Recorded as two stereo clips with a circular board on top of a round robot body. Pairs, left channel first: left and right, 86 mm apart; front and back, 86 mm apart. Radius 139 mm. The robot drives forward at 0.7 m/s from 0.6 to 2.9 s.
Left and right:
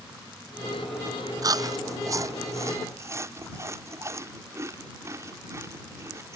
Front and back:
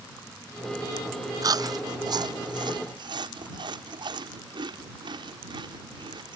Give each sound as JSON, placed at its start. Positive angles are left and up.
{"t": 1.4, "sound": "chewing", "azimuth_deg": -135}